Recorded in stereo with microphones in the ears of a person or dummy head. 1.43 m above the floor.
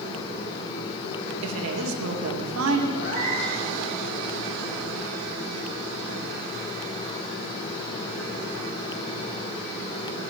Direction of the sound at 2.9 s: 65° left (ahead or behind).